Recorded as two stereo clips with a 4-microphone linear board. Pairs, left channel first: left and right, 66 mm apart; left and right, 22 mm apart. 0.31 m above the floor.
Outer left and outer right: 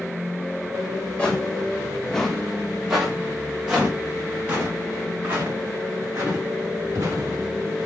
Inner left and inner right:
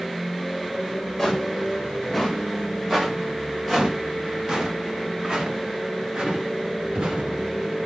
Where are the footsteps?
15° left (ahead or behind), 3 m; by 7.4 s 40° right (ahead or behind), 5 m.